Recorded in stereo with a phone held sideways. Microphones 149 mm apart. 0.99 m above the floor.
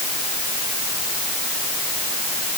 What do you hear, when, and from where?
Only background noise.